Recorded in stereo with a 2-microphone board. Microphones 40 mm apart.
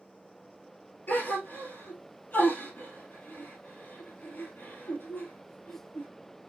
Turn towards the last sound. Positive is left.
turn(degrees=45)  # may be behind; listen again after turning